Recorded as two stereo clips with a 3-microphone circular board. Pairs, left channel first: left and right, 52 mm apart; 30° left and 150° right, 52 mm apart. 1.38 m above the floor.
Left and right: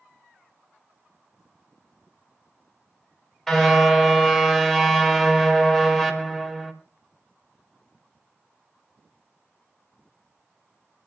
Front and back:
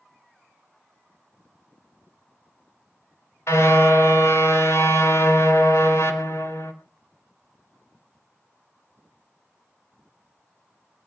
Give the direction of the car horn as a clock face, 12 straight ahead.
12 o'clock.